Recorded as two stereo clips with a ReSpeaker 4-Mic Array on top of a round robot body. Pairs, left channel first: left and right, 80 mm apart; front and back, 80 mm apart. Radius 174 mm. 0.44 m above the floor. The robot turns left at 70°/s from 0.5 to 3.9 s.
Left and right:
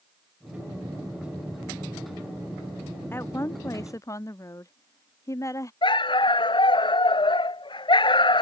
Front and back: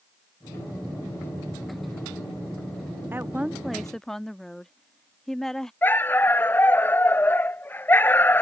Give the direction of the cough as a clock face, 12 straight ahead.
No cough in this recording.